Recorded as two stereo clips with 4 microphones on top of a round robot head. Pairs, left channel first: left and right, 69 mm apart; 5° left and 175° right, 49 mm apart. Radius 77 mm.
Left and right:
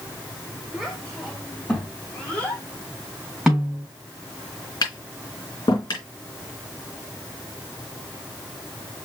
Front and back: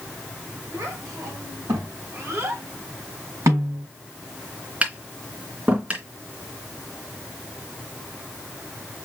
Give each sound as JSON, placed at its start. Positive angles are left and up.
{"t": 0.7, "sound": "a child speaking", "azimuth_deg": -175, "distance_m": 3.5}
{"t": 3.5, "sound": "a snare drum", "azimuth_deg": -170, "distance_m": 3.5}
{"t": 4.8, "sound": "tapping", "azimuth_deg": 125, "distance_m": 2.5}